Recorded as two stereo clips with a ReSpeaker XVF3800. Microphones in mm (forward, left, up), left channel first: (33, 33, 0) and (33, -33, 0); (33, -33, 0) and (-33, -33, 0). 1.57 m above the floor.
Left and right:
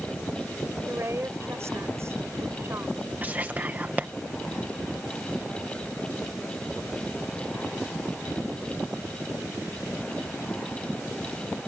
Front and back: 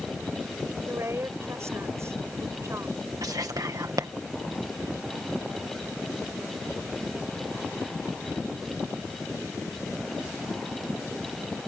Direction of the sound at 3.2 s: 155° right.